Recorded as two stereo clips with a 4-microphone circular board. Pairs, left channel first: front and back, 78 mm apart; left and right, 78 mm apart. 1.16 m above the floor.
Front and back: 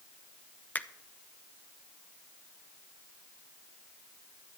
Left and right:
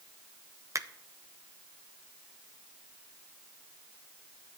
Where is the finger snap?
60° right, 0.5 m.